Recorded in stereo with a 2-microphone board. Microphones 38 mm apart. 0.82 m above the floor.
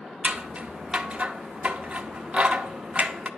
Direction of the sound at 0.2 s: 30° right (ahead or behind).